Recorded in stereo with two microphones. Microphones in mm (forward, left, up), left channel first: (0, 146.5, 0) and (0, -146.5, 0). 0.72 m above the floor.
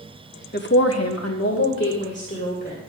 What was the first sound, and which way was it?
A woman speaking, 35° left (ahead or behind).